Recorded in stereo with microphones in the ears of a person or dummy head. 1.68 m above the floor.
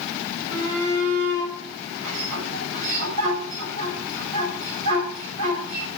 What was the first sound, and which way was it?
A shout, 40° right (ahead or behind).